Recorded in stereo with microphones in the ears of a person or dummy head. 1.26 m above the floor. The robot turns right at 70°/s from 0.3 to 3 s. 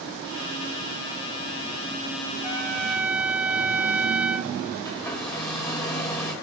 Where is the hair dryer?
20° left (ahead or behind), 2 m.